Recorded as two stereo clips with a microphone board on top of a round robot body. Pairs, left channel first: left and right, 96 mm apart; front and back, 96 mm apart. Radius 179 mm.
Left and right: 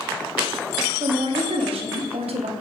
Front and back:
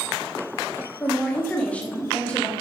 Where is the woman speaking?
75° right, 0.9 m.